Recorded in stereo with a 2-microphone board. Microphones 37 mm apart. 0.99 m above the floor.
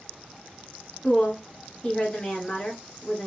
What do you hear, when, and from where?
1.0 s a woman speaking: 30° left (ahead or behind), 1.1 m